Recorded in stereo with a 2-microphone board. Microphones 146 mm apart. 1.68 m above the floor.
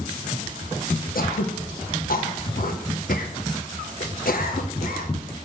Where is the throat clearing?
75° left (ahead or behind), 1.4 m.